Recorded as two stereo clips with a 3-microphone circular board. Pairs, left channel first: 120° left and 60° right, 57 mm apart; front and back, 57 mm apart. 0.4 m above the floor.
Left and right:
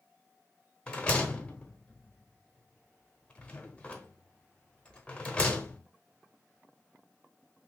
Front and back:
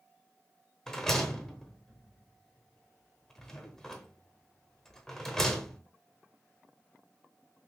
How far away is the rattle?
About 0.7 m.